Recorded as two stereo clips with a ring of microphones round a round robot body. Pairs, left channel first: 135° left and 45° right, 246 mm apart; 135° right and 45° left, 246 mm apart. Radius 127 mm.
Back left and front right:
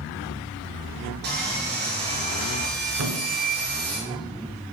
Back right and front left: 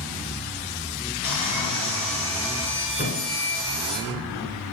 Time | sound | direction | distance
1.2 | sawing | 95° right | 5 m
3.0 | a thud | 80° right | 2 m